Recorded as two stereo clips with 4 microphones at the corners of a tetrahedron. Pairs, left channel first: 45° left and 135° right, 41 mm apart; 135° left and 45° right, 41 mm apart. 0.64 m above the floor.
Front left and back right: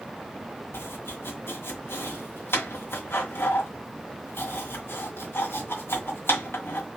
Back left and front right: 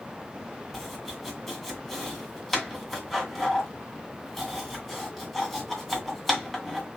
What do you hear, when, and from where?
0.7 s chopping: 50° left, 1.9 m